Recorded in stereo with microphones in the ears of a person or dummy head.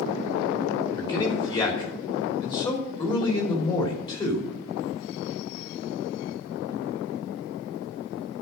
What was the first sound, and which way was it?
A man speaking, 25° left (ahead or behind).